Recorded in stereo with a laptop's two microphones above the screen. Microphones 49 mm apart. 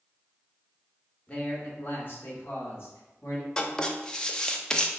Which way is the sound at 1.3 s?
25° left (ahead or behind).